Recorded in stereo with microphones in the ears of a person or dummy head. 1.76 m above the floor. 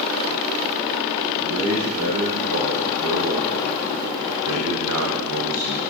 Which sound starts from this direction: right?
A man speaking, at 1.4 s.